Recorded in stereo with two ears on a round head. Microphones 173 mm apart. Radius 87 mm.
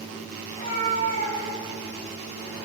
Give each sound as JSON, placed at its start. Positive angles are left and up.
{"t": 0.5, "sound": "a cat meowing", "side_deg": 40, "distance_m": 2.5}